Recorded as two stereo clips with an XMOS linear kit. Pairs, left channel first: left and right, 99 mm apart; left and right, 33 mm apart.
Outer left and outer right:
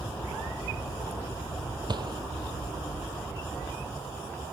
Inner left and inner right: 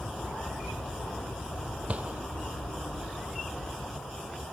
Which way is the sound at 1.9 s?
45° right (ahead or behind).